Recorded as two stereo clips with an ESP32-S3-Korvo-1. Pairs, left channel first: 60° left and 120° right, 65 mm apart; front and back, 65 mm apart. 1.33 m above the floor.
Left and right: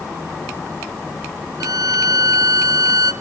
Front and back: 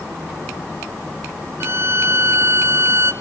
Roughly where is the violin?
Behind right.